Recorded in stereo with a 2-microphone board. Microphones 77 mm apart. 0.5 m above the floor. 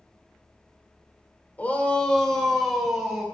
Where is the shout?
20° left (ahead or behind), 1.9 m; by 3.2 s 5° right (ahead or behind), 3 m.